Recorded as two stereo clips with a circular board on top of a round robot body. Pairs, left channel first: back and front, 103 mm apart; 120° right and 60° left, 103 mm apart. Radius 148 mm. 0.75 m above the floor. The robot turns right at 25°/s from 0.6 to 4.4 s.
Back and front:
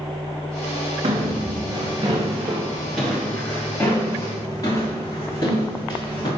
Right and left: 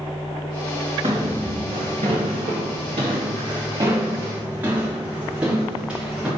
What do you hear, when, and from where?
1.0 s footsteps: 15° left, 4 m; by 6.3 s 140° left, 6.5 m